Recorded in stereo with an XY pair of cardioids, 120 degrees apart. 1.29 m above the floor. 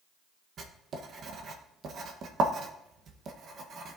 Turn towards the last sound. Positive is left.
turn(degrees=-50)